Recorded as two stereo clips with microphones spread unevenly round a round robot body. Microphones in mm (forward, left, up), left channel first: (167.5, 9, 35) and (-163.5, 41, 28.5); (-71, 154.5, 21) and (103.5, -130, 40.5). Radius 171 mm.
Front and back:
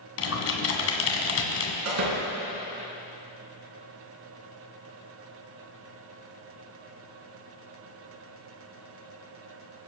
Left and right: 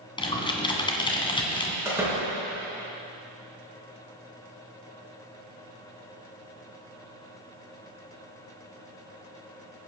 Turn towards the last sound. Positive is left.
turn(degrees=-140)